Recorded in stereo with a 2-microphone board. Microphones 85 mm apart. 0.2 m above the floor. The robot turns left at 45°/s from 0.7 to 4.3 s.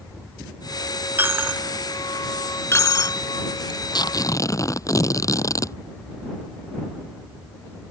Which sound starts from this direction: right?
A dropped coin, at 1.2 s.